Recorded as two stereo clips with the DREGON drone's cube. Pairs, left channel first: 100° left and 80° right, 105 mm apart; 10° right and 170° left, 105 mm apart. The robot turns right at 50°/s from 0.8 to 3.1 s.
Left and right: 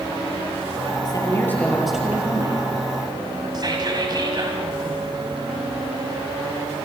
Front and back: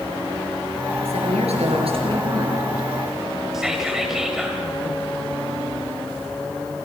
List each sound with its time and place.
1.1 s a woman speaking: 150° left, 6.5 m; by 2.6 s 130° right, 6.5 m
3.5 s whispering: 105° right, 2 m